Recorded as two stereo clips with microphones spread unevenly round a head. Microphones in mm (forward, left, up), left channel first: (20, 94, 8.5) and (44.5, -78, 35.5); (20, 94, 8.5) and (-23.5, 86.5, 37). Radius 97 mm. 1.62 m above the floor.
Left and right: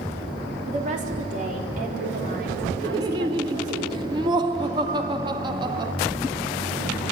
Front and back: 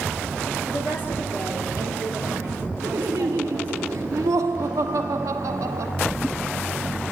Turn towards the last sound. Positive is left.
turn(degrees=-150)